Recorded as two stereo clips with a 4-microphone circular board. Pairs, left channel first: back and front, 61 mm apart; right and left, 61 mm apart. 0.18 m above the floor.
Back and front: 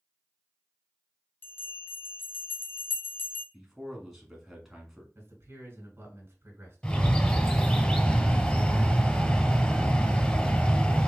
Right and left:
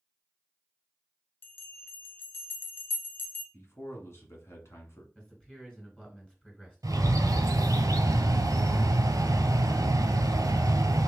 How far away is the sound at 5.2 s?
About 2.5 m.